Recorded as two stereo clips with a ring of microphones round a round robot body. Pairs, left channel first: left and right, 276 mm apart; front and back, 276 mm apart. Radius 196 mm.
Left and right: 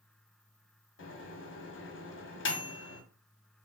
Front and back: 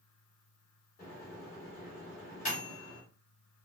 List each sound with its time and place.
1.0 s a microwave: 60° left, 0.7 m